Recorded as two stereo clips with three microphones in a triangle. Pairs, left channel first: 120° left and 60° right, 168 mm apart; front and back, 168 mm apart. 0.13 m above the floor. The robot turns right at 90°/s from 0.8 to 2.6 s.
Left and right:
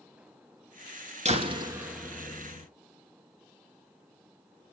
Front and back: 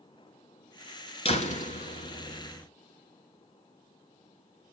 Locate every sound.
1.2 s a door slam: 35° right, 1.3 m; by 2.7 s 85° left, 1.3 m